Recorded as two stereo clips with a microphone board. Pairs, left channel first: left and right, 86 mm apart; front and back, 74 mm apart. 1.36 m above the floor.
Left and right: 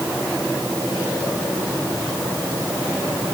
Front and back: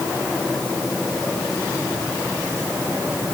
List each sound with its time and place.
Only background noise.